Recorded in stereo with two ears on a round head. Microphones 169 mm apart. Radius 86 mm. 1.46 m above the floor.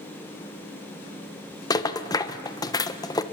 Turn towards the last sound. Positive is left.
turn(degrees=20)  # may be behind; listen again after turning